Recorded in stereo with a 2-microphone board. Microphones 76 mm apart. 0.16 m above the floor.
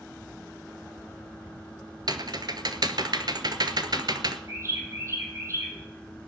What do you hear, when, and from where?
2.1 s typing on a keyboard: 60° right (ahead or behind), 1.0 m
4.5 s a bird: 35° right (ahead or behind), 4 m